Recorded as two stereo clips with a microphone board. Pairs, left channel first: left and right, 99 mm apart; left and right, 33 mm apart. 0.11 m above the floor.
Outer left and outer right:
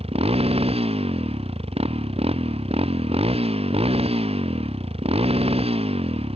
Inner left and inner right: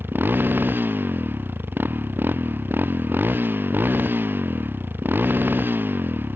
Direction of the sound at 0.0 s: 85° right.